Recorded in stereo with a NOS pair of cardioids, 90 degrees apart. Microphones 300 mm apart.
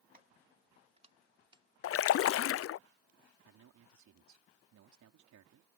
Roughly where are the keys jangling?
Ahead right.